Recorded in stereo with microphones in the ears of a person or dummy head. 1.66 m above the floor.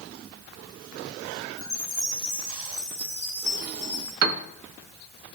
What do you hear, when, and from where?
1.6 s a chime: 10° right (ahead or behind), 2.5 m
4.2 s a piano: 85° right, 0.7 m